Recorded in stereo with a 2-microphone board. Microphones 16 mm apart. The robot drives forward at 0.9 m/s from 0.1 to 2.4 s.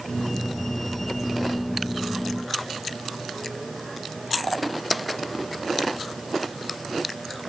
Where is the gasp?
I don't hear a gasp.